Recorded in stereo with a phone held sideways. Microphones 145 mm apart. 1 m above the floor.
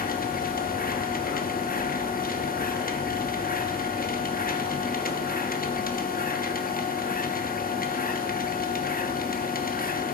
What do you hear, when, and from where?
0.0 s a machine running: 85° left, 1.0 m